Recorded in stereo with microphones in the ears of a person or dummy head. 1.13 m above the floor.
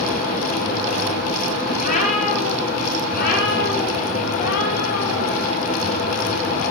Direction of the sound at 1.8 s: 45° left (ahead or behind).